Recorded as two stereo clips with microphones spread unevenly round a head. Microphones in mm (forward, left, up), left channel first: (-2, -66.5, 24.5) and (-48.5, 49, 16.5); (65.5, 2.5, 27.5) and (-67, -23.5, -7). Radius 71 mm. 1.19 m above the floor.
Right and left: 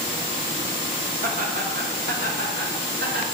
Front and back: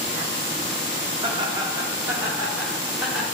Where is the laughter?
130° left, 2 m; by 3.2 s 100° left, 2.5 m.